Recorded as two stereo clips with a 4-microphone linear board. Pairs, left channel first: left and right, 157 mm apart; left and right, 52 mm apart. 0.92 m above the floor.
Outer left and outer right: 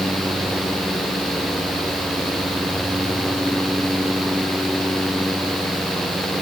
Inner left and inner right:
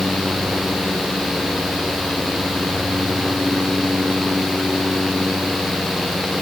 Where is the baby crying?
I don't hear a baby crying.